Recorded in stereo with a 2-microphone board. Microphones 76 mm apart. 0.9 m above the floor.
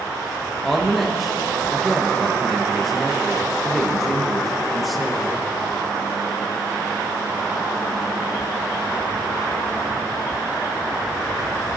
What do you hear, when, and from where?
0.6 s a woman speaking: centre (ahead or behind), 1.0 m